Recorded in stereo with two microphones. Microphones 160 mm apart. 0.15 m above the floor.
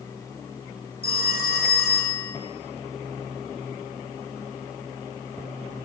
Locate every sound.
1.0 s a phone ringing: 75° left (ahead or behind), 6.5 m